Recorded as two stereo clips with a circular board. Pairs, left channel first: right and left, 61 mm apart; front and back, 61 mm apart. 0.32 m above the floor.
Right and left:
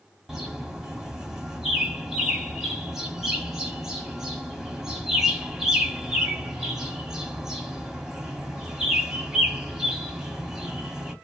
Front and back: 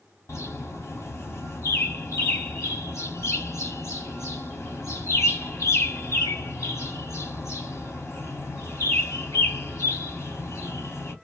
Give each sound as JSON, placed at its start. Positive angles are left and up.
{"t": 0.3, "sound": "a bird", "azimuth_deg": 5, "distance_m": 1.6}